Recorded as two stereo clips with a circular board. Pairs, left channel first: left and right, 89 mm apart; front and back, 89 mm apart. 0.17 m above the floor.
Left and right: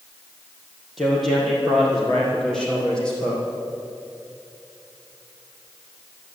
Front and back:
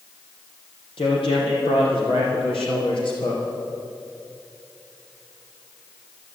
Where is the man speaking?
Straight ahead, 5.5 m; by 3.4 s 10° left, 6.5 m.